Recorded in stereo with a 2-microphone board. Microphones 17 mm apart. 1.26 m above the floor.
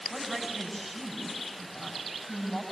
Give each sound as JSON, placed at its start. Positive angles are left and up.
{"t": 0.1, "sound": "a woman speaking", "side_deg": 5, "distance_m": 9.5}